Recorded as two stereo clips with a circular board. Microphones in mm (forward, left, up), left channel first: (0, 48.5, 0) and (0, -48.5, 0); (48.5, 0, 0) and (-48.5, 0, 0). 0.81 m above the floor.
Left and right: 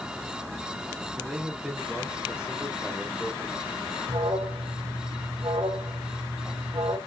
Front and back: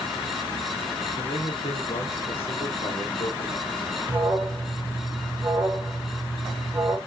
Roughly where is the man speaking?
Ahead.